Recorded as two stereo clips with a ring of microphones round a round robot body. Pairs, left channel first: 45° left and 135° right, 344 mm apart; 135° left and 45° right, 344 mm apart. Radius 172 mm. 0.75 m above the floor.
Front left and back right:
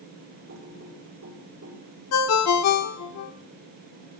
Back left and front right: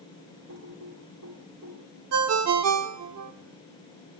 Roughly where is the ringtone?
Ahead.